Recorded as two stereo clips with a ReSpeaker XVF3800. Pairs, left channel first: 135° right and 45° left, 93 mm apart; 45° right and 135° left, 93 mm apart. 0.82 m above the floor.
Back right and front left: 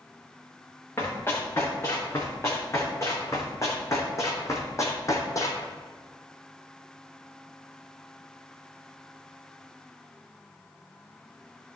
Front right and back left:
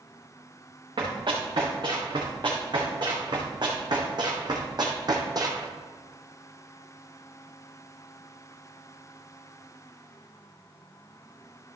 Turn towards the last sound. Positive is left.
turn(degrees=175)